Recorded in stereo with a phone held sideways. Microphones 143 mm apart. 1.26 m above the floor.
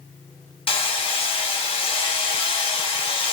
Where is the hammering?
40° left (ahead or behind), 0.9 m.